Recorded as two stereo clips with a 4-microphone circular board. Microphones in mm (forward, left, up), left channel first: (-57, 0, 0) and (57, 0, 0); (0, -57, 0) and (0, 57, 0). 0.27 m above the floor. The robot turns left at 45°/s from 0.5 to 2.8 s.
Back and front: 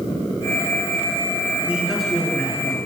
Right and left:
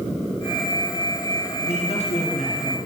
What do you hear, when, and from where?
1.7 s a man speaking: 75° right, 3.5 m; by 2.8 s 125° right, 3.5 m